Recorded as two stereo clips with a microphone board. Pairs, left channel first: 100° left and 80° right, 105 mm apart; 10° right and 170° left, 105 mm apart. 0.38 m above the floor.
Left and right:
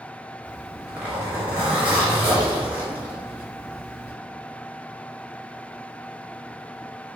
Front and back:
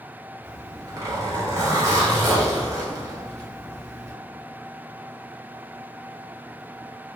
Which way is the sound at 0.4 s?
145° right.